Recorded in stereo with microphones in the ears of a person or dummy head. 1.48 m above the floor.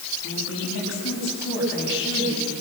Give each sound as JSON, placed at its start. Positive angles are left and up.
{"t": 0.2, "sound": "a woman speaking", "side_deg": 75, "distance_m": 8.5}